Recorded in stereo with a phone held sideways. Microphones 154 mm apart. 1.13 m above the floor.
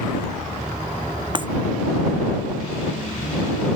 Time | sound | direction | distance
1.4 | breaking glass | 35° right (ahead or behind) | ?